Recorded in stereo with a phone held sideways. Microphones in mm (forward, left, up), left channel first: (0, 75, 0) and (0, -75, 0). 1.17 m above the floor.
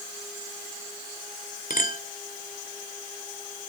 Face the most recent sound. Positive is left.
turn(degrees=65)  # may be behind; listen again after turning